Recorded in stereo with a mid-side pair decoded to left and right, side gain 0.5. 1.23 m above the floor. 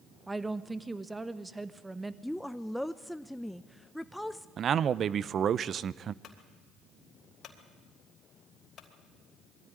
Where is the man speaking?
50° right, 0.6 m.